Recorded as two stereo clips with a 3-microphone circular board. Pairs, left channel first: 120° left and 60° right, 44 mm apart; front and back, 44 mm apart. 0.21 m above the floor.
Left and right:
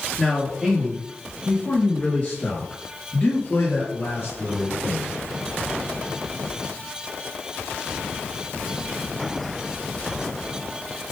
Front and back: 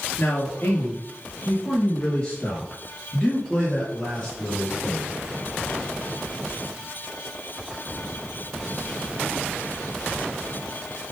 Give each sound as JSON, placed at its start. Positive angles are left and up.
{"t": 0.2, "sound": "a man speaking", "azimuth_deg": 45, "distance_m": 2.5}